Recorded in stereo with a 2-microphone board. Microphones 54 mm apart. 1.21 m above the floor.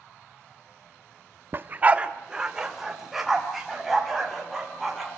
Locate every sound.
1.5 s a dog barking: 40° right (ahead or behind), 0.8 m; by 5.1 s centre (ahead or behind), 5.5 m